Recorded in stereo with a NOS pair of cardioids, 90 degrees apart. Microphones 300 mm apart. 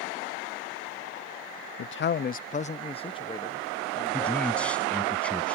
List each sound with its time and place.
1.8 s a man speaking: 45° left; by 5.1 s 5° left
4.1 s a man speaking: 5° left